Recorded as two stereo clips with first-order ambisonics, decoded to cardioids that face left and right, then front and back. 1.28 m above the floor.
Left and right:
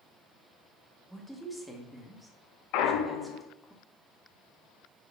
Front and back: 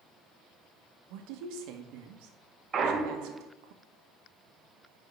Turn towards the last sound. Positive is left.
turn(degrees=115)